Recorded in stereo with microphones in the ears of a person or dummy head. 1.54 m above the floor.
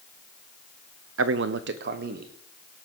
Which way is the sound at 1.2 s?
60° right (ahead or behind).